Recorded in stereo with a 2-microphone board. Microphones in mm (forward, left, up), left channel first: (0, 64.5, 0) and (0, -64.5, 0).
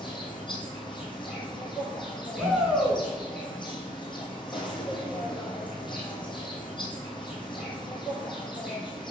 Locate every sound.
0.0 s an insect: 35° left (ahead or behind), 1.5 m
2.4 s a shout: 5° right (ahead or behind), 1.9 m